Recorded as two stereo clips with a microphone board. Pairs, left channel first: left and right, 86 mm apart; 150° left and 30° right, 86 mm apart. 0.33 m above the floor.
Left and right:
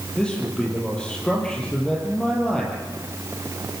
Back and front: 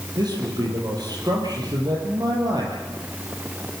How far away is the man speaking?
About 9 m.